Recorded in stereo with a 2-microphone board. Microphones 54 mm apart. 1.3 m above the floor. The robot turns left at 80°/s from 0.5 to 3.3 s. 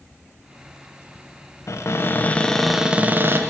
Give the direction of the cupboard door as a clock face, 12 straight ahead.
9 o'clock.